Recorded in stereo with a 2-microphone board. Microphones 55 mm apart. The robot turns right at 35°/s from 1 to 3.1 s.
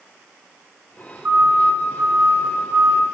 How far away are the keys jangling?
I don't hear keys jangling.